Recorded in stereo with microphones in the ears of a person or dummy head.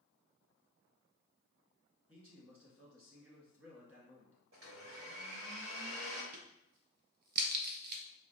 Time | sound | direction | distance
2.1 | a man speaking | 10° right (ahead or behind) | 1.7 m
4.5 | a blender | 65° right (ahead or behind) | 1.3 m
6.3 | a crack | 55° right (ahead or behind) | 0.6 m